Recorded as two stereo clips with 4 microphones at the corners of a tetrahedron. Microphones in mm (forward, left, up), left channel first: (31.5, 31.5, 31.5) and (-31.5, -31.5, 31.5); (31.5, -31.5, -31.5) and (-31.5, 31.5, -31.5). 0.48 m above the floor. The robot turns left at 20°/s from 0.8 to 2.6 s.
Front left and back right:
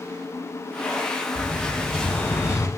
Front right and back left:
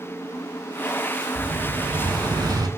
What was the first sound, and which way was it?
An explosion, 120° left.